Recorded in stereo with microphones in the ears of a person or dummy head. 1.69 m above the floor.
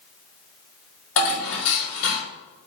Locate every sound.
1.2 s dishes clattering: 75° left (ahead or behind), 3.5 m